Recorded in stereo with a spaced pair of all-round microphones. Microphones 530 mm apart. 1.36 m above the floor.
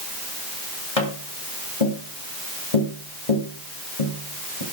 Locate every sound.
1.0 s tapping: 85° left, 3 m